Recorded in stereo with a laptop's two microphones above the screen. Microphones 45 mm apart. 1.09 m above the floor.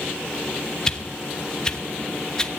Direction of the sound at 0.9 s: 15° left (ahead or behind).